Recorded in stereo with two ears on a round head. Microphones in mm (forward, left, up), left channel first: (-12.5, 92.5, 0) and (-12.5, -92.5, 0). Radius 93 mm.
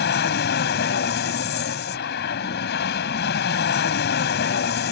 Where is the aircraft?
50° left (ahead or behind).